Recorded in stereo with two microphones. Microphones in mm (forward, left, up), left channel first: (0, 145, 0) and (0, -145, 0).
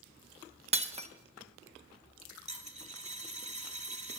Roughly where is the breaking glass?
Right.